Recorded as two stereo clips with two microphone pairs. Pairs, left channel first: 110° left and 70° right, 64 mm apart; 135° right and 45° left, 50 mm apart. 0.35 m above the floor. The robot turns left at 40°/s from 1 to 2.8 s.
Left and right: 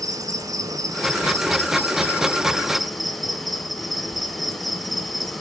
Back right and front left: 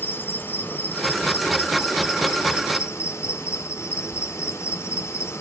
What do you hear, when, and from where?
0.0 s an insect: 85° right, 1.1 m; by 5.4 s 160° right, 1.1 m